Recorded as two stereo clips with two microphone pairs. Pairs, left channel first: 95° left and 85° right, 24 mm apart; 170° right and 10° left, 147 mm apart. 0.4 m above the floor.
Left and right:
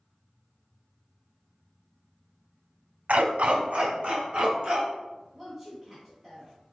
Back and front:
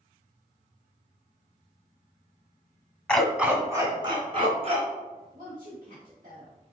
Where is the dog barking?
90° right, 0.8 m; by 4.9 s 35° right, 2.0 m.